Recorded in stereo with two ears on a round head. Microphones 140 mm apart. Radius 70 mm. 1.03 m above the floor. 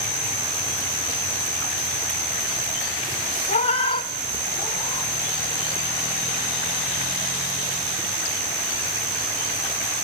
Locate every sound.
3.5 s a cat meowing: 40° left (ahead or behind), 0.7 m; by 5.1 s 20° left (ahead or behind), 1.3 m